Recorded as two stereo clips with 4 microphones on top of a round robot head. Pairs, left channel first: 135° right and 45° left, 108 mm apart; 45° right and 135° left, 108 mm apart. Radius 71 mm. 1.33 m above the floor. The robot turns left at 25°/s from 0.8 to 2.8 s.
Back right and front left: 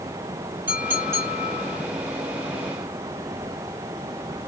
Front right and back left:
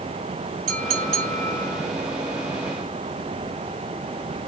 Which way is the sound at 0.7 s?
115° left.